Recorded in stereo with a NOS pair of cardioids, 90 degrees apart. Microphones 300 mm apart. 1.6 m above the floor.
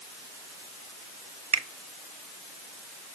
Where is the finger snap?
20° right, 0.8 m.